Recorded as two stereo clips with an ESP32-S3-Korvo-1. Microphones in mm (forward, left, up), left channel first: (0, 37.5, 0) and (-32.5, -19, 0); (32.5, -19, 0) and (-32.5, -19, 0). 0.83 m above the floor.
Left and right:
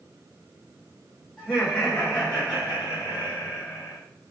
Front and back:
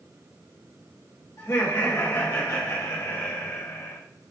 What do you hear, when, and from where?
1.4 s laughter: 10° right, 1.4 m; by 4.0 s 30° left, 2.5 m